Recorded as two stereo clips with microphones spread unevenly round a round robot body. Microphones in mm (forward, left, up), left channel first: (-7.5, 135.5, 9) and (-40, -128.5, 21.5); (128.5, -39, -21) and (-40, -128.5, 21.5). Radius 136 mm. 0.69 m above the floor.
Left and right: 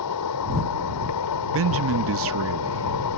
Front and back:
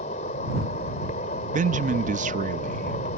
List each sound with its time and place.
0.0 s an insect: 90° left
1.5 s a man speaking: 100° right